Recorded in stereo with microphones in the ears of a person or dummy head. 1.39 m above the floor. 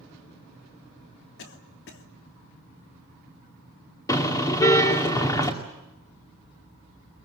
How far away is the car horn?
About 2 m.